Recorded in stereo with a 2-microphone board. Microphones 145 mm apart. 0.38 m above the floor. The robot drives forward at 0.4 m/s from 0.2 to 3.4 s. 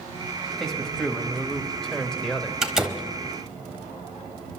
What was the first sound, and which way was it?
A man speaking, 5° left (ahead or behind).